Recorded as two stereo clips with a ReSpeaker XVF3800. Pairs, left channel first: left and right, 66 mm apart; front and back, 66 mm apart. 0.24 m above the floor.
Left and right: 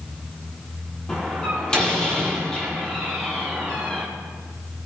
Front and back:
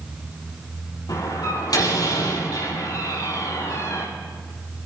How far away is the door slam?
About 5.5 m.